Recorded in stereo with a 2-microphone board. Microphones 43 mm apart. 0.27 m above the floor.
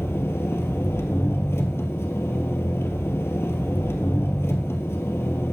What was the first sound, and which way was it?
An engine running, 75° left (ahead or behind).